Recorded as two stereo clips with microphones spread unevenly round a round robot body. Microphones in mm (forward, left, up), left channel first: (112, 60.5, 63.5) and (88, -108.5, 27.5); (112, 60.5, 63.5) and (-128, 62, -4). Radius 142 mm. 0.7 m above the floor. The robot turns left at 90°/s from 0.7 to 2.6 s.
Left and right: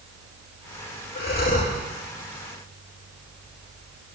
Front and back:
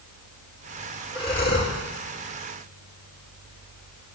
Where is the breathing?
75° left, 7 m; by 1.8 s 20° left, 7 m.